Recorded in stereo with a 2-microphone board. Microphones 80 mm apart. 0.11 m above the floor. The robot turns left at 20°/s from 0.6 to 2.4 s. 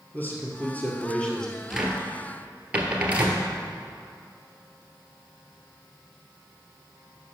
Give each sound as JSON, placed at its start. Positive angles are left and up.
{"t": 0.1, "sound": "a man speaking", "side_deg": 25, "distance_m": 2.0}
{"t": 1.7, "sound": "a cupboard door", "side_deg": -5, "distance_m": 1.2}